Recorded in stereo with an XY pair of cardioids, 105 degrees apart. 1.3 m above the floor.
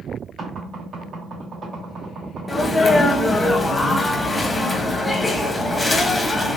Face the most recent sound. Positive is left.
turn(degrees=10)